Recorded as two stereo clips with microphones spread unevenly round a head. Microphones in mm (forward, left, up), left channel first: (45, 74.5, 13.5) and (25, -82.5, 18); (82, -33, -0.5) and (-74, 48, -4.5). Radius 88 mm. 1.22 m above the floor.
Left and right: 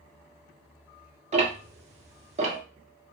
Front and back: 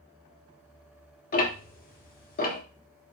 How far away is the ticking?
About 1.0 m.